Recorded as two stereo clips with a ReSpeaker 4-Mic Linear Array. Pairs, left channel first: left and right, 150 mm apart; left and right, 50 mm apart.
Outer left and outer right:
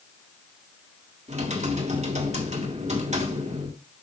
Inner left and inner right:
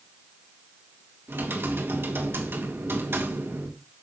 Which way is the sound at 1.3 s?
50° right (ahead or behind).